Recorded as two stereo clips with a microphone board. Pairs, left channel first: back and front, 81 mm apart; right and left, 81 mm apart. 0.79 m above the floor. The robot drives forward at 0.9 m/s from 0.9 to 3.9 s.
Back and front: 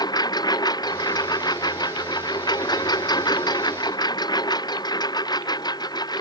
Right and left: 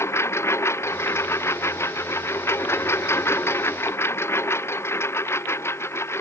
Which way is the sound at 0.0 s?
145° right.